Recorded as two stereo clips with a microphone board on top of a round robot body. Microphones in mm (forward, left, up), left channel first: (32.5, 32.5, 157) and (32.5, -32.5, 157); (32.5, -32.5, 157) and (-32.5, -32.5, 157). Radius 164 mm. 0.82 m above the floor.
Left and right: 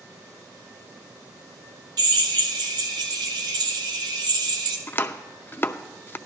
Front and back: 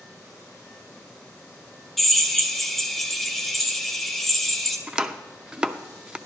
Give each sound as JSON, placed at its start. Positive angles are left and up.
{"t": 2.0, "sound": "a drill", "azimuth_deg": -85, "distance_m": 0.6}
{"t": 4.9, "sound": "chopping", "azimuth_deg": 115, "distance_m": 0.7}